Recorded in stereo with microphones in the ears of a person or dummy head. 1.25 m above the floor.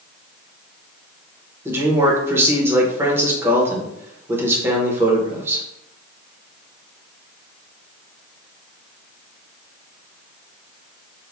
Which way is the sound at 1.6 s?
20° right (ahead or behind).